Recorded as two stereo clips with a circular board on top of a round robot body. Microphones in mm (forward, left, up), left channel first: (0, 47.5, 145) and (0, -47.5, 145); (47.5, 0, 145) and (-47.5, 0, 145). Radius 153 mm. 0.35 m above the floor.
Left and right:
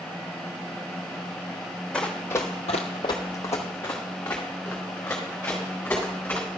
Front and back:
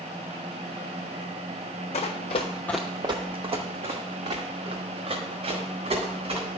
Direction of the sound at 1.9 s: 10° left.